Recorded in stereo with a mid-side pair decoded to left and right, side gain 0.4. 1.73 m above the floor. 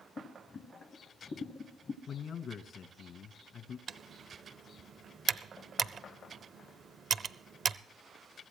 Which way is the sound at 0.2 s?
45° left.